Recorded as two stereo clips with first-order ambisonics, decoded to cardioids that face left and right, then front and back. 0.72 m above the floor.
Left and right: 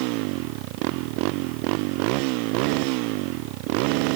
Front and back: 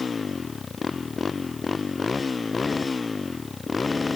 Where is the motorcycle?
75° right; by 4.2 s 80° right.